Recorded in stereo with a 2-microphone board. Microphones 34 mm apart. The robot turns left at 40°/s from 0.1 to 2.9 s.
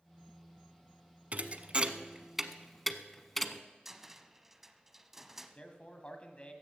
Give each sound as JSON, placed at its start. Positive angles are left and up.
{"t": 1.3, "sound": "a thud", "side_deg": -50, "distance_m": 0.7}
{"t": 3.9, "sound": "a cupboard door", "side_deg": -10, "distance_m": 0.6}
{"t": 5.5, "sound": "a man speaking", "side_deg": 35, "distance_m": 1.5}